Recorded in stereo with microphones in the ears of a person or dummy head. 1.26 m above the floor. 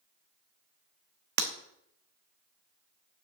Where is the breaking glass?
50° right (ahead or behind), 0.9 m.